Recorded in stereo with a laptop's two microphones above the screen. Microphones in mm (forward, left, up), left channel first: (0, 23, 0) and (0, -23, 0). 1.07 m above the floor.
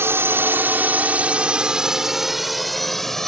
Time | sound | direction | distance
0.0 | a drone | 65° right (ahead or behind) | ?